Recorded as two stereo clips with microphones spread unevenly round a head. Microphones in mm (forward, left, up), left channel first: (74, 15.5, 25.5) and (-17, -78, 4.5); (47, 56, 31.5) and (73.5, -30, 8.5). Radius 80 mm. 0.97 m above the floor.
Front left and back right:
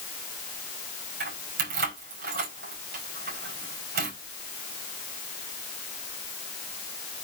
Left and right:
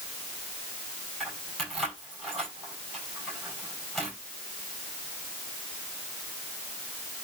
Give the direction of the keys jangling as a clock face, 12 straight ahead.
6 o'clock.